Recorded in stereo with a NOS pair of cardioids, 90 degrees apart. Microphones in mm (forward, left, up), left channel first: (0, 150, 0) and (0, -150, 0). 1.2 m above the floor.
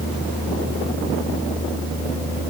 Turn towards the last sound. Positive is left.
No sound to turn to.